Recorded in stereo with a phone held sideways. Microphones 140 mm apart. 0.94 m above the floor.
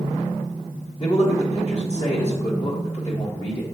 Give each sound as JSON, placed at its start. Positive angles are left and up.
{"t": 1.0, "sound": "a man speaking", "side_deg": 50, "distance_m": 1.5}